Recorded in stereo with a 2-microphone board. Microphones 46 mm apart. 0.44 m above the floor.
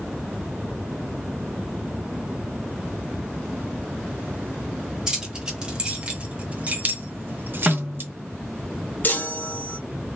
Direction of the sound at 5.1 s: 15° right (ahead or behind).